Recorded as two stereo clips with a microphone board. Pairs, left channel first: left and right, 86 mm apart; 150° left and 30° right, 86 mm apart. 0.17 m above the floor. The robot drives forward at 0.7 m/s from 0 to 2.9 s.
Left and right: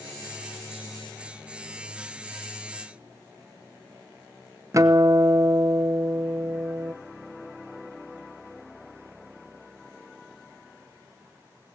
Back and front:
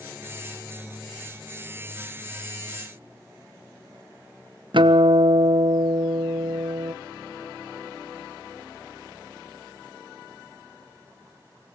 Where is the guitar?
40° right, 0.8 m.